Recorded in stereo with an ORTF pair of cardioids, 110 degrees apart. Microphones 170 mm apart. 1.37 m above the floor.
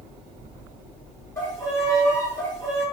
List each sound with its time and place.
1.4 s a violin: 15° left, 1.5 m